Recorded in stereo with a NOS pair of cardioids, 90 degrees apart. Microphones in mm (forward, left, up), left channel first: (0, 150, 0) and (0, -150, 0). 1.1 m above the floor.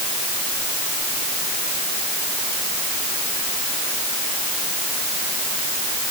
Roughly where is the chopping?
No chopping in this recording.